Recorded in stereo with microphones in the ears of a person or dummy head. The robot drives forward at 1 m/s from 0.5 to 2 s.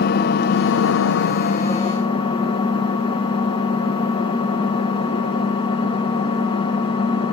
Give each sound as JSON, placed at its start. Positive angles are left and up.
{"t": 0.0, "sound": "an engine running", "side_deg": 55, "distance_m": 0.8}